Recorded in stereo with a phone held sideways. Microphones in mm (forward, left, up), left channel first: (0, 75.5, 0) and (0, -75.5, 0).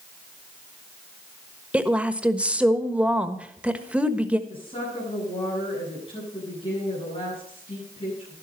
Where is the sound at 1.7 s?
10° right (ahead or behind), 1.3 m.